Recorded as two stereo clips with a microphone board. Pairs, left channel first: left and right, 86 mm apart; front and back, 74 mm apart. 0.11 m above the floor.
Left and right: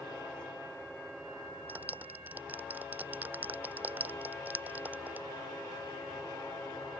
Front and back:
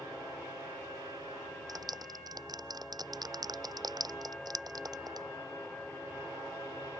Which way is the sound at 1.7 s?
160° right.